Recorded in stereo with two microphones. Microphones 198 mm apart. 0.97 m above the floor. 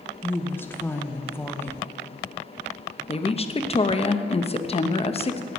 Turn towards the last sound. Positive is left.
turn(degrees=30)  # may be behind; listen again after turning